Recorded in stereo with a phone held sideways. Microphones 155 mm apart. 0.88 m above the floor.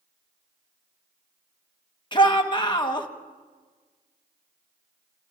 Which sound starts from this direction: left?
A shout, at 2.1 s.